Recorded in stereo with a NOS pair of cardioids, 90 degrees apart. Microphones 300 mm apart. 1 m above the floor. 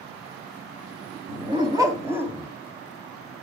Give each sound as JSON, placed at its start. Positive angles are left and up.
{"t": 1.3, "sound": "a dog barking", "azimuth_deg": -20, "distance_m": 2.5}